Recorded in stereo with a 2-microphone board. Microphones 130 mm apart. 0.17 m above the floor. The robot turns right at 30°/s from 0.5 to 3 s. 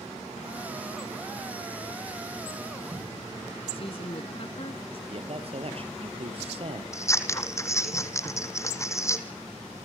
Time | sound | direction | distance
3.7 | a woman speaking | 50° left (ahead or behind) | 1.5 m
5.1 | a man speaking | 50° right (ahead or behind) | 3 m
6.9 | scissors | 20° left (ahead or behind) | 1.9 m